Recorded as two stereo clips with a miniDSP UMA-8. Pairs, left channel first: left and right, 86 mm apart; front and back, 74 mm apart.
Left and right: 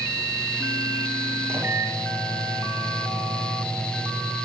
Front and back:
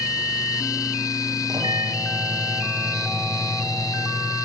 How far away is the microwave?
About 3.5 m.